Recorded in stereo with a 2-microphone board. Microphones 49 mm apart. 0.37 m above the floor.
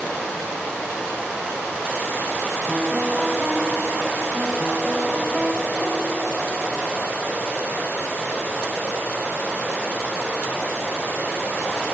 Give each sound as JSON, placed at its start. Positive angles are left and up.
{"t": 2.7, "sound": "a piano", "side_deg": -15, "distance_m": 0.7}